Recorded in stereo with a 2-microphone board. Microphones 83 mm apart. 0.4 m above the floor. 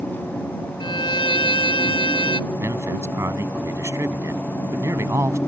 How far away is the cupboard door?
No cupboard door in this recording.